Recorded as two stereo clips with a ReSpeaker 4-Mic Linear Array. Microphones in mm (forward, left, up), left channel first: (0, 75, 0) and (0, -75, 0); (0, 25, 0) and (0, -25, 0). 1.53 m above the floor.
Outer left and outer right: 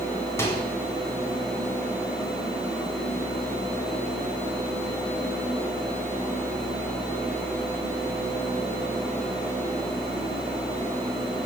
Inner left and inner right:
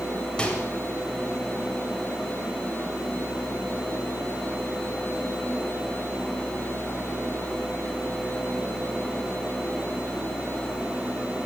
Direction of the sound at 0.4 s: 15° left (ahead or behind).